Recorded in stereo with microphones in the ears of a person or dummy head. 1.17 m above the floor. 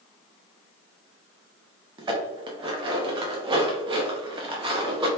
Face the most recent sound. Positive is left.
turn(degrees=-25)  # may be behind; listen again after turning